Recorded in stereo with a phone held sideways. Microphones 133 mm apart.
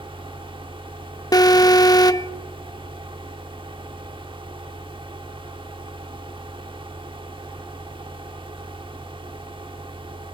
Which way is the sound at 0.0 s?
40° right (ahead or behind).